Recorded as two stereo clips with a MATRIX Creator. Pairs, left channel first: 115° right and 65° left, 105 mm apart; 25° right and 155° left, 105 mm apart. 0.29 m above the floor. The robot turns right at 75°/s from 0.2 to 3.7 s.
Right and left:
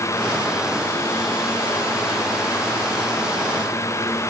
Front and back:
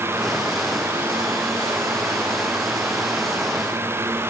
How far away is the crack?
I don't hear a crack.